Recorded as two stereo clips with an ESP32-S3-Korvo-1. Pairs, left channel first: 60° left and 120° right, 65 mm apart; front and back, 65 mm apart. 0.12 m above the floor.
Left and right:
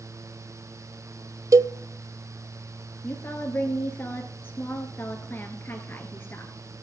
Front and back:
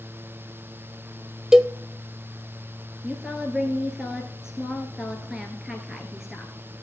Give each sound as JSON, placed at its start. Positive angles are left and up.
{"t": 1.5, "sound": "a cowbell", "azimuth_deg": -100, "distance_m": 0.5}
{"t": 3.0, "sound": "a woman speaking", "azimuth_deg": 105, "distance_m": 1.6}